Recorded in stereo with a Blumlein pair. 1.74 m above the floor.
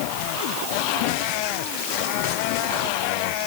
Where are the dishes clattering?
I don't hear dishes clattering.